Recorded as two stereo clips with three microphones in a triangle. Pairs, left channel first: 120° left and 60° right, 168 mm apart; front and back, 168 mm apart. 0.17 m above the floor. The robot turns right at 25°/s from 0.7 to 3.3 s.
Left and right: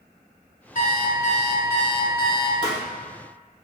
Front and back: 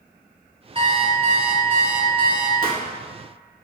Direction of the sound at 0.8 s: 135° left.